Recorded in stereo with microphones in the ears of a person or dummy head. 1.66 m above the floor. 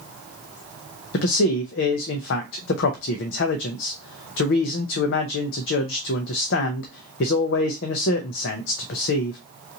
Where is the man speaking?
60° left (ahead or behind), 0.5 m.